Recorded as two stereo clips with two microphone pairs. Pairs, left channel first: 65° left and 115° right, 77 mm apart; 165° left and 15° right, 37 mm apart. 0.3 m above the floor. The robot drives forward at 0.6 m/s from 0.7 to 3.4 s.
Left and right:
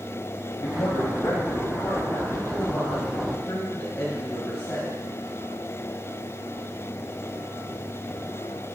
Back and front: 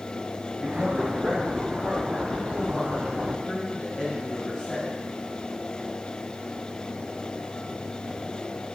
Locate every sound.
0.6 s a man speaking: 60° left, 2 m; by 5.0 s 115° left, 2 m